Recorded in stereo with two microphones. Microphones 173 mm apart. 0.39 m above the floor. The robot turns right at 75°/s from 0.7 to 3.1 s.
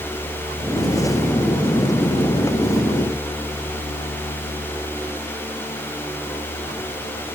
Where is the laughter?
No laughter in this recording.